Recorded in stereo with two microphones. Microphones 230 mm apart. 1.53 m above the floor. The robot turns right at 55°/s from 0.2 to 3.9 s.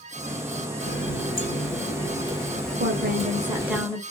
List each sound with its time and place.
0.8 s a running tap: 75° left, 1.3 m; by 3.8 s 120° right, 1.3 m
2.8 s a woman speaking: 55° right, 0.9 m; by 4.0 s 5° left, 0.9 m